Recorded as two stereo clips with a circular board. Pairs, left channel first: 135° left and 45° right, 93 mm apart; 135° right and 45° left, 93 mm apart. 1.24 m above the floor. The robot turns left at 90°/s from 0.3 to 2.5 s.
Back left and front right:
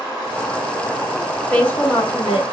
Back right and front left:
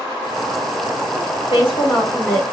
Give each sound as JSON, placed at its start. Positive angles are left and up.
{"t": 1.5, "sound": "a woman speaking", "azimuth_deg": -145, "distance_m": 2.0}